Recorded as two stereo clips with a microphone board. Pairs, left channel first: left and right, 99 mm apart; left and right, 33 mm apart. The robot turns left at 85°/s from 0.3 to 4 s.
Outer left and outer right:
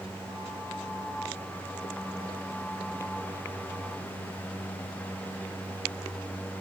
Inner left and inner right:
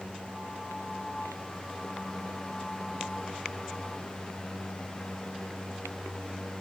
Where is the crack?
I don't hear a crack.